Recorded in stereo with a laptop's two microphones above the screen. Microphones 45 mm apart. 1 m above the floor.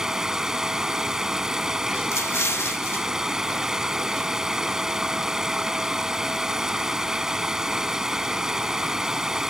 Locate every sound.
0.0 s running water: 10° right (ahead or behind)
2.1 s an explosion: 75° left (ahead or behind)